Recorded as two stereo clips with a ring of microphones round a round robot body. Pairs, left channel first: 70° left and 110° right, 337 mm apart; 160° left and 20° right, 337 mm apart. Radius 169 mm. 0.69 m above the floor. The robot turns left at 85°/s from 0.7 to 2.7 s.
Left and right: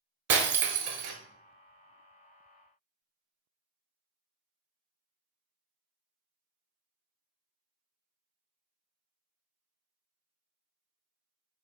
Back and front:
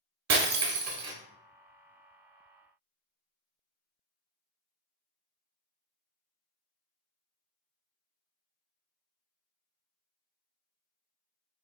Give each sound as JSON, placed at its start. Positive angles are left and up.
{"t": 0.3, "sound": "breaking glass", "azimuth_deg": -65, "distance_m": 0.9}